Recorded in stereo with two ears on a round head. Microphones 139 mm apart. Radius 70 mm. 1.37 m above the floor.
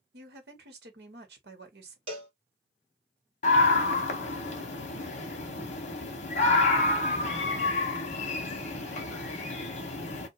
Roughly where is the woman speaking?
Right.